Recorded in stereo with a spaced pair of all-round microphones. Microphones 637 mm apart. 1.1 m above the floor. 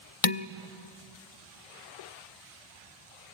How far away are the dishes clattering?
About 0.6 m.